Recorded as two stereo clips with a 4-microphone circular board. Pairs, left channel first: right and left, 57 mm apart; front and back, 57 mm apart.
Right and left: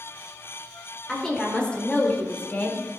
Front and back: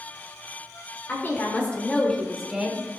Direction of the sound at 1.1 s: 10° right.